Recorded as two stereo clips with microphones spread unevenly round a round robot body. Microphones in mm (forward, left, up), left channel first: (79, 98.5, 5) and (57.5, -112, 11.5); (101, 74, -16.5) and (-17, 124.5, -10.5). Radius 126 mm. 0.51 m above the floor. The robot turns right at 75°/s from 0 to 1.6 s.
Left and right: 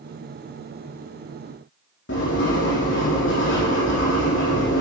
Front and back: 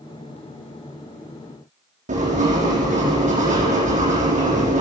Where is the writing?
135° left, 4.5 m.